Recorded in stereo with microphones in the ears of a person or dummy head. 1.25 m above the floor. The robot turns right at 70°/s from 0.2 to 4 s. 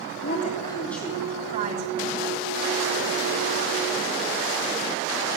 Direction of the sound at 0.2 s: 130° left.